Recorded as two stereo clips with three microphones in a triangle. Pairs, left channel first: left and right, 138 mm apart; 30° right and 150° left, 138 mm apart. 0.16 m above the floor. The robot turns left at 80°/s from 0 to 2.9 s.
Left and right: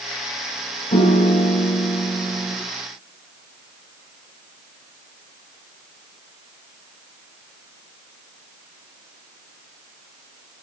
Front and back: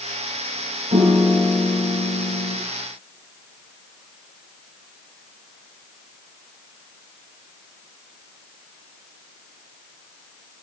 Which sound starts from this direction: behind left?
A piano, at 0.9 s.